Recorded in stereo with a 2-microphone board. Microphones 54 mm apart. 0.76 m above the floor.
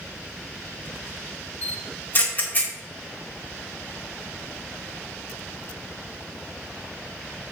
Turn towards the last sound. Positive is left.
turn(degrees=35)  # may be behind; listen again after turning